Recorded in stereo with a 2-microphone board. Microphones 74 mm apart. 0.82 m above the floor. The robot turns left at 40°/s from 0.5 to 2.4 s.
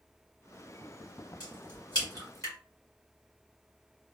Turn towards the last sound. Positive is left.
turn(degrees=45)  # may be behind; listen again after turning